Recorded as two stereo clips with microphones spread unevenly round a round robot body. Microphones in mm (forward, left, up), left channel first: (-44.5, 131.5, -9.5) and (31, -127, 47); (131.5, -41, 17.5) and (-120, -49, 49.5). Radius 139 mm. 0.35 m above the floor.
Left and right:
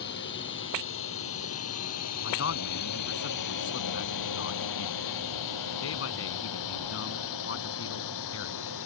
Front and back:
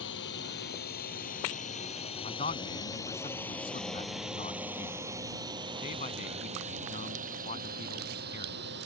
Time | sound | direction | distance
0.0 | a drone | 55° left | ?
2.2 | a man speaking | 65° left | ?